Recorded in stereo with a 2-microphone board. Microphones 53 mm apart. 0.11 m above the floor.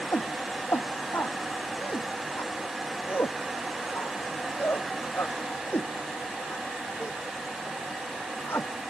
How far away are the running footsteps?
No running footsteps in this recording.